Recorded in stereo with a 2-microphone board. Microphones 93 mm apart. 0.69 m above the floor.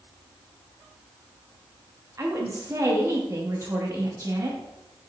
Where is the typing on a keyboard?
No typing on a keyboard in this recording.